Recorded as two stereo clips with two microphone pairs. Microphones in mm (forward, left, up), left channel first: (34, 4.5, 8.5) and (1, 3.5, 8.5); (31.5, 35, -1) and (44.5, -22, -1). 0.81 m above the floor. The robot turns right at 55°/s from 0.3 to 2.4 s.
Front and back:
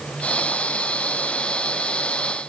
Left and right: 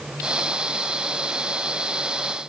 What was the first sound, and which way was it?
Only background noise.